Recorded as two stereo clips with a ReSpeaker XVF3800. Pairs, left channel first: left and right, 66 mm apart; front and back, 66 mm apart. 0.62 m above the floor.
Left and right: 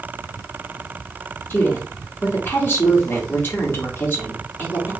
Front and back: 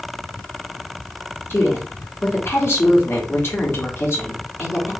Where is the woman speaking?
40° left, 1.6 m.